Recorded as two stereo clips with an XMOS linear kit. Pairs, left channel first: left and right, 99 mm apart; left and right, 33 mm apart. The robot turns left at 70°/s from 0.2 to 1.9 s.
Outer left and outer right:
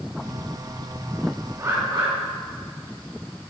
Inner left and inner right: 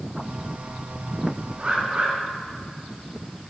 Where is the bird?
30° right (ahead or behind), 4 m; by 2.1 s 55° right (ahead or behind), 4 m.